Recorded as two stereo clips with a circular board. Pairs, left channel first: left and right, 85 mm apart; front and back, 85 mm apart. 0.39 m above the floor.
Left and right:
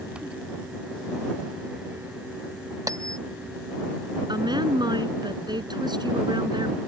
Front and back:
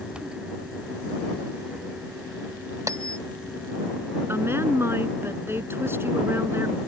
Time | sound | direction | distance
2.9 | a bell | 135° right | ?
4.3 | a woman speaking | 120° right | ?